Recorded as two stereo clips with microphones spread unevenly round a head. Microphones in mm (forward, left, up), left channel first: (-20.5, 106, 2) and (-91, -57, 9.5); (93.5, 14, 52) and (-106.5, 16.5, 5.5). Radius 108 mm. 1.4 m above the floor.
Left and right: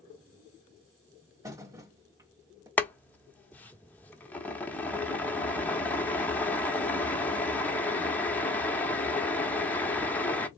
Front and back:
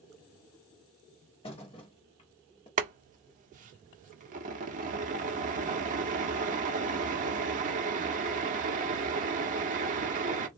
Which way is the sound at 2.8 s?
140° left.